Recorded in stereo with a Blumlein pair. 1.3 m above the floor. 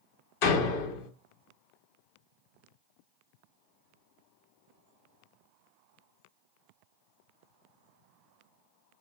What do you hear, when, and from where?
0.4 s a door slam: 45° left, 1.1 m